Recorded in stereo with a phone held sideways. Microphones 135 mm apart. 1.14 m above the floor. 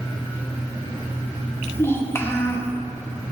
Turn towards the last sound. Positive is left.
turn(degrees=15)  # may be behind; listen again after turning